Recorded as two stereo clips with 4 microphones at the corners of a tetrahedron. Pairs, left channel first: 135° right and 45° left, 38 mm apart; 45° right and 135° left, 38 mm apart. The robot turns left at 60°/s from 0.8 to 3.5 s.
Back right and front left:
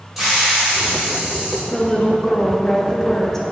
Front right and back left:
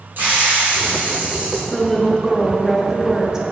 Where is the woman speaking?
85° right, 0.8 m; by 3.4 s 170° left, 0.8 m.